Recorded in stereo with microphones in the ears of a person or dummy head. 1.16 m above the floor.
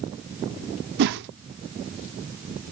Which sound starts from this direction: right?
A whoosh, at 1.0 s.